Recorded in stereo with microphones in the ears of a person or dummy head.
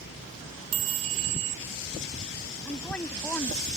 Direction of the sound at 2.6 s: 10° left (ahead or behind).